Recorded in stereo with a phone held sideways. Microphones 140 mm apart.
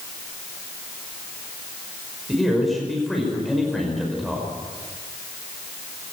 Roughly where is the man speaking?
Centre.